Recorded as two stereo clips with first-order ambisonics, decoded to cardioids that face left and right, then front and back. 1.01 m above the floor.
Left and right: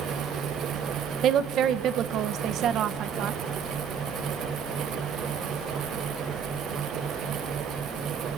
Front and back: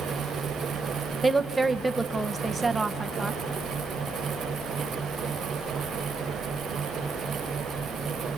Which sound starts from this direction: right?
A woman speaking, at 1.2 s.